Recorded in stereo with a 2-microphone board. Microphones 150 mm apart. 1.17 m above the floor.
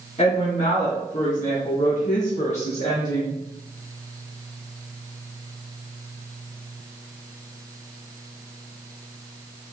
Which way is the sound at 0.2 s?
50° left (ahead or behind).